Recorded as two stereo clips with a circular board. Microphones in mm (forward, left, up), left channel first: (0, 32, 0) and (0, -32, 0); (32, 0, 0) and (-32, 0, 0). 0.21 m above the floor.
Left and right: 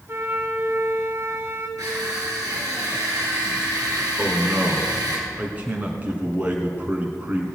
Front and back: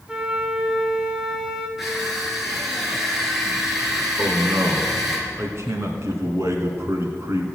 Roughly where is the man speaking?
Behind right.